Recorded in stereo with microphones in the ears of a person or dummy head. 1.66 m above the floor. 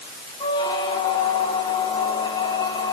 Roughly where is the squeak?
Centre.